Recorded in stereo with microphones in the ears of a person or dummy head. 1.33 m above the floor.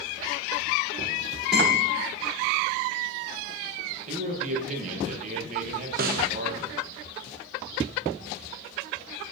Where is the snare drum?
45° right (ahead or behind), 0.6 m.